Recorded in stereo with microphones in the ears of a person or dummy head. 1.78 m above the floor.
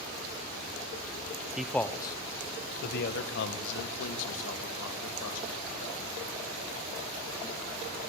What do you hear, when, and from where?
1.6 s a man speaking: 5° right (ahead or behind), 1.0 m; by 6.0 s 80° left, 4 m